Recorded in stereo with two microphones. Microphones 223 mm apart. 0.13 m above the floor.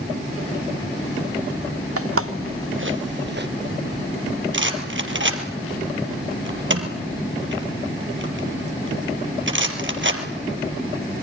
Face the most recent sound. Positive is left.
turn(degrees=-60)  # may be behind; listen again after turning